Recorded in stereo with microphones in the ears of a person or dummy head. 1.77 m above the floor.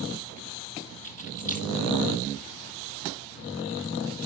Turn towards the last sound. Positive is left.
turn(degrees=-15)  # may be behind; listen again after turning